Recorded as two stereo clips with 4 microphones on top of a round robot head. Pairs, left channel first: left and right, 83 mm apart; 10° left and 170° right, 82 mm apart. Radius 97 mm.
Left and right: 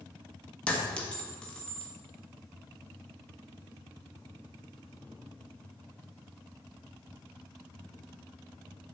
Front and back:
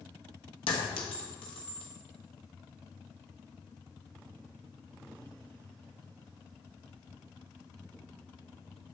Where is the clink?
15° left, 1.3 m.